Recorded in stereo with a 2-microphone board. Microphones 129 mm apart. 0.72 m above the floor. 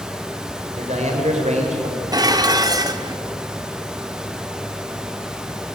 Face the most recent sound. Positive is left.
turn(degrees=-30)  # may be behind; listen again after turning